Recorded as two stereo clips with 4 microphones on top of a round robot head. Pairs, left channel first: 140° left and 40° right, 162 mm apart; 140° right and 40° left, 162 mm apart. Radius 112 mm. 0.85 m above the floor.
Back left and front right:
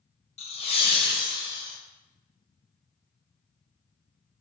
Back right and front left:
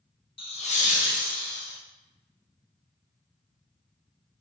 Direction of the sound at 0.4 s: 175° left.